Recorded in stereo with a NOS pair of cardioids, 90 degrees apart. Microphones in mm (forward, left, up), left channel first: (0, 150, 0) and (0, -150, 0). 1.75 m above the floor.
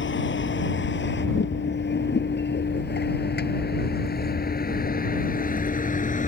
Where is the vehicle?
40° left; by 6.3 s 25° left.